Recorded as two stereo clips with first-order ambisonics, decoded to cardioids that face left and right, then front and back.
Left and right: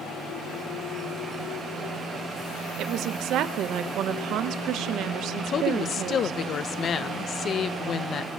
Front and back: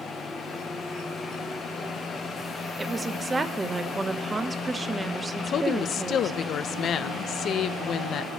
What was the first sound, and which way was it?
A woman speaking, 105° right.